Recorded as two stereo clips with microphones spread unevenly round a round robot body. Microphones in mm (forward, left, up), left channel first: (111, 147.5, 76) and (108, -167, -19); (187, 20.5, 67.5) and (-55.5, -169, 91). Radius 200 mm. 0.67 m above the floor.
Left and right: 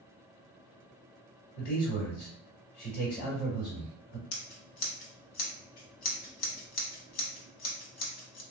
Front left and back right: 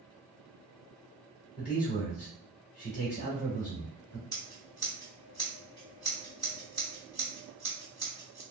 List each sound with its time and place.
1.6 s a man speaking: 85° left, 1.7 m
4.3 s scissors: 120° left, 0.5 m